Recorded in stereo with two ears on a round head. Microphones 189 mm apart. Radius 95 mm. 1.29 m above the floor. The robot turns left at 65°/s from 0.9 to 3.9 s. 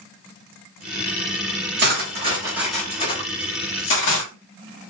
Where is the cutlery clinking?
55° right (ahead or behind), 1.6 m; by 4.3 s 70° left (ahead or behind), 1.6 m.